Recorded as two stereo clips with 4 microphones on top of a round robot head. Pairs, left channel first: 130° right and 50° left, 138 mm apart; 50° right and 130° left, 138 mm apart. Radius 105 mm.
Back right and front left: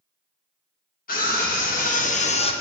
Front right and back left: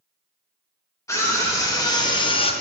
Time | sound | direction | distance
1.1 | a scream | 120° right | 2.5 m